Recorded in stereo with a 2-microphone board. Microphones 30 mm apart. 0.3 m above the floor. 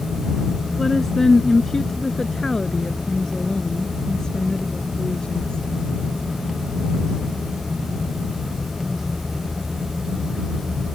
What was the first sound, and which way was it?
A woman speaking, 10° left (ahead or behind).